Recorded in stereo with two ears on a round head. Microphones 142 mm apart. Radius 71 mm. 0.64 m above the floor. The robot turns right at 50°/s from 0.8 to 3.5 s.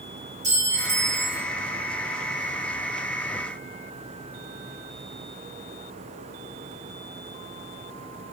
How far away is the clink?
About 3 m.